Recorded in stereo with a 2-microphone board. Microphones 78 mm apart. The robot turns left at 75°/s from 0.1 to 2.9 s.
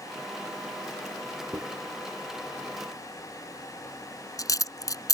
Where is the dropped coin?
55° right (ahead or behind); by 5.1 s 50° left (ahead or behind).